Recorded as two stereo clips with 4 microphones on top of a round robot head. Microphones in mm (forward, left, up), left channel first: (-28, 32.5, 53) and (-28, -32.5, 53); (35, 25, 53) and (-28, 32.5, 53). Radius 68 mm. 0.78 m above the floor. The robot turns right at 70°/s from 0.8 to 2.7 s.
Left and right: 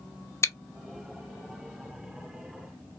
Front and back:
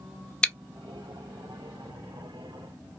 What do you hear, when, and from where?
0.4 s chewing: 65° left, 0.6 m